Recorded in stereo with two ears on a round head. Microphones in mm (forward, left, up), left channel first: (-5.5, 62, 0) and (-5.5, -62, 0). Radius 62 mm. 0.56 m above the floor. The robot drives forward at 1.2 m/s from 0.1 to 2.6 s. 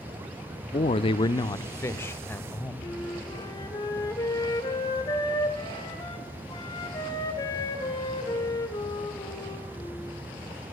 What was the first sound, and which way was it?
A man speaking, 35° left (ahead or behind).